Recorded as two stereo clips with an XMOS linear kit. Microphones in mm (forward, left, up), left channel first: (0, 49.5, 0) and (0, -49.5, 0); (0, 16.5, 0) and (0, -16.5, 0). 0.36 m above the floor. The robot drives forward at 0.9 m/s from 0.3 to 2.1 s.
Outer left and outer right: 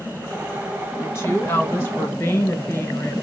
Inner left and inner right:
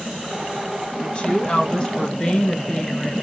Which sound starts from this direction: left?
A woman speaking, at 1.0 s.